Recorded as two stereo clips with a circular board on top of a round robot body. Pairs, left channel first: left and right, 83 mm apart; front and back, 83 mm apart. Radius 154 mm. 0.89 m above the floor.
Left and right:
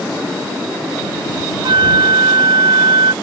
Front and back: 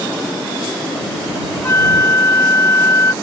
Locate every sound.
1.6 s a flute: 60° right